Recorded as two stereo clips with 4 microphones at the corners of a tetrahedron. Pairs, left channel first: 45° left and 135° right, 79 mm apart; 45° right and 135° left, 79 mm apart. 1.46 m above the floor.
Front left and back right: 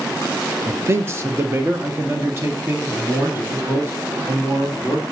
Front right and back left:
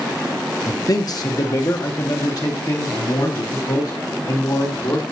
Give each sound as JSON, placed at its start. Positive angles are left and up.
{"t": 0.7, "sound": "a man speaking", "azimuth_deg": -80, "distance_m": 0.7}